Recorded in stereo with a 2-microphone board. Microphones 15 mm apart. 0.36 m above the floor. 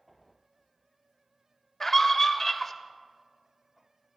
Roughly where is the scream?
Centre.